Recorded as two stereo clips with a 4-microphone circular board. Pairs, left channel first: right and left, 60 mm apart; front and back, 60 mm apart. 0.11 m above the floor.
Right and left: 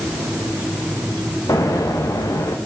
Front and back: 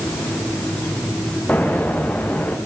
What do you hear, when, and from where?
1.5 s an explosion: 70° right, 2.5 m